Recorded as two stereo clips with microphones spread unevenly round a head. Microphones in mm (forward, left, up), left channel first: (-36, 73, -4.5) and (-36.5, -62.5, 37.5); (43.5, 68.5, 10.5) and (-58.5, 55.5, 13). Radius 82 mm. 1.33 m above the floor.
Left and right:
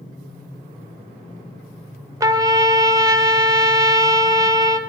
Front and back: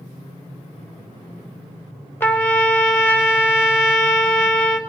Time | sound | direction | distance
2.2 | a trumpet | 60° right | 0.6 m